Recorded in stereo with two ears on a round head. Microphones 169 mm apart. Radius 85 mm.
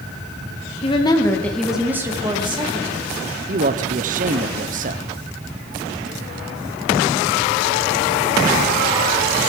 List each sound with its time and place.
0.8 s a woman speaking: 30° left (ahead or behind), 2 m; by 3.0 s 35° right (ahead or behind), 3 m
3.5 s a man speaking: 40° right (ahead or behind), 0.9 m